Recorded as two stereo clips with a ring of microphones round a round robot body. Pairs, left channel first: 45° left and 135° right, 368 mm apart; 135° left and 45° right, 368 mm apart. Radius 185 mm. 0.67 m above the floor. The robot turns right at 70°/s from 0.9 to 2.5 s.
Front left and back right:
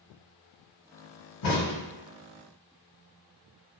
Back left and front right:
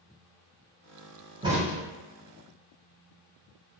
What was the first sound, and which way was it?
A crack, 30° left.